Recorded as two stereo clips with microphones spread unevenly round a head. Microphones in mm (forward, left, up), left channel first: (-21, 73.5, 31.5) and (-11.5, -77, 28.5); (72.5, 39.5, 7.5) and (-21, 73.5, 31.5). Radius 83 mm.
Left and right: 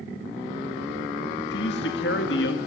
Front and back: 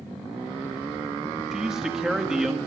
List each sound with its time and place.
1.5 s a man speaking: 75° left, 1.7 m